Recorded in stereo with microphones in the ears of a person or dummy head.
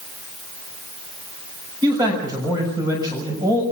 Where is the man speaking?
20° right (ahead or behind), 6.5 m.